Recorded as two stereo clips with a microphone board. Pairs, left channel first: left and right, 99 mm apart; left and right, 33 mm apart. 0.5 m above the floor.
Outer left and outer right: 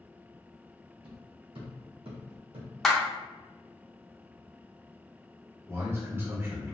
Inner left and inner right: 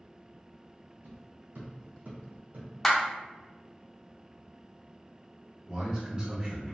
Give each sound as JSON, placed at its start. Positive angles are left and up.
{"t": 1.0, "sound": "footsteps", "side_deg": -65, "distance_m": 1.7}
{"t": 2.8, "sound": "a clap", "side_deg": 5, "distance_m": 0.7}
{"t": 5.7, "sound": "a man speaking", "side_deg": -25, "distance_m": 1.2}